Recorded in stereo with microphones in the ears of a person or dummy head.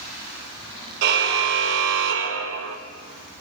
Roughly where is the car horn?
Right.